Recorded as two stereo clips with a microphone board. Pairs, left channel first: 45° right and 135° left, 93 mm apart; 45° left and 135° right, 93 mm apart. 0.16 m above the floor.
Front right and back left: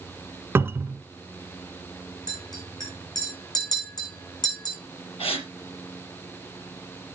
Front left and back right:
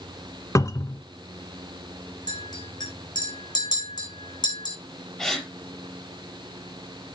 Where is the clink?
Straight ahead, 6.5 m.